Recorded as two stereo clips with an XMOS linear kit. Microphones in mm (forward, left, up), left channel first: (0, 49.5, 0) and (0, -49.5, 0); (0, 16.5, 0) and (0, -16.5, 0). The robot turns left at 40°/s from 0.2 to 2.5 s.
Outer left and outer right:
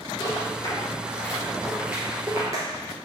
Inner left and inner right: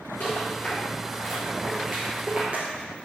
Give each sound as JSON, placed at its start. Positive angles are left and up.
{"t": 0.2, "sound": "a rattle", "side_deg": 55, "distance_m": 2.5}